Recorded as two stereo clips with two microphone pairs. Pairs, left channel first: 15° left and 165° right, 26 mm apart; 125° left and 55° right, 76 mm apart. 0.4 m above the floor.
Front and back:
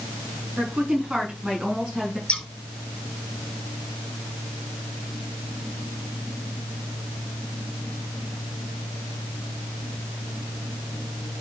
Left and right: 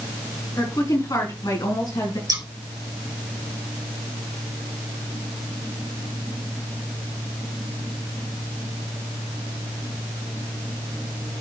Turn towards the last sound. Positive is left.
turn(degrees=-25)